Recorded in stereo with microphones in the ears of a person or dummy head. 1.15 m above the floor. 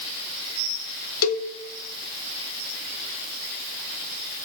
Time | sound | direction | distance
1.2 | a cowbell | 85° left | 0.5 m